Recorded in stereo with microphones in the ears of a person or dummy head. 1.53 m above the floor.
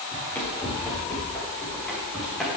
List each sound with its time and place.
0.1 s running footsteps: 10° left (ahead or behind), 7 m; by 2.5 s centre (ahead or behind), 4.5 m